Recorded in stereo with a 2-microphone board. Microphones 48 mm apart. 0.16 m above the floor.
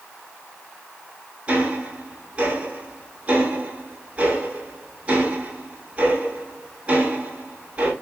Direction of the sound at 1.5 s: 25° right (ahead or behind).